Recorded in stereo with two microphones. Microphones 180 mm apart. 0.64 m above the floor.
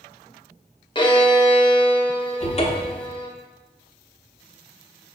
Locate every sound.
0.9 s a violin: 25° left (ahead or behind), 0.6 m
2.4 s a cupboard door: 35° left (ahead or behind), 0.7 m